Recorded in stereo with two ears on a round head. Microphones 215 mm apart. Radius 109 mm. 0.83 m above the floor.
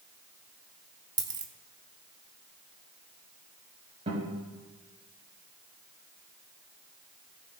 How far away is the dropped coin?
About 0.7 m.